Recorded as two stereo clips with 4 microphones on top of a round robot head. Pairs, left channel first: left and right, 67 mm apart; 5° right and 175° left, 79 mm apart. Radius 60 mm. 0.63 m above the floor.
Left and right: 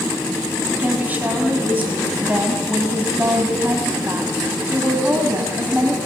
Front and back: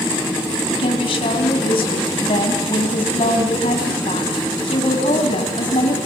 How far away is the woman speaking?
About 5.5 m.